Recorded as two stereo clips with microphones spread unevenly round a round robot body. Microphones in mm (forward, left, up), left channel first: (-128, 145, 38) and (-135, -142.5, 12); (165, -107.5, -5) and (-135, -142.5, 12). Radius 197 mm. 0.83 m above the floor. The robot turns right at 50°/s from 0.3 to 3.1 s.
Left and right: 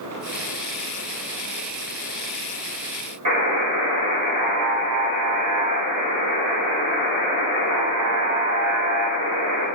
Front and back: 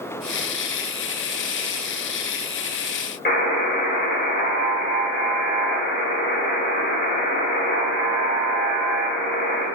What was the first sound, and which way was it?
A buzzer, 50° right.